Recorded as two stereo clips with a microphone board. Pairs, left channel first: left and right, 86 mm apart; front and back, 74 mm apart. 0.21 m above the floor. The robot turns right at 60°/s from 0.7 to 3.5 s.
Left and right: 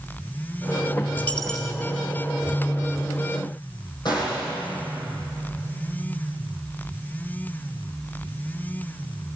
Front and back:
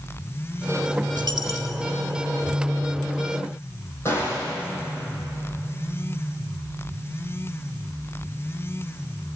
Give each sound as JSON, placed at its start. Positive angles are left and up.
{"t": 1.2, "sound": "a dropped coin", "azimuth_deg": 155, "distance_m": 1.6}
{"t": 4.0, "sound": "a gunshot", "azimuth_deg": 55, "distance_m": 7.0}